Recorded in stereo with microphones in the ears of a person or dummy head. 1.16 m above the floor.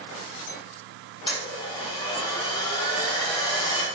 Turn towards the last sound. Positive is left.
turn(degrees=30)  # may be behind; listen again after turning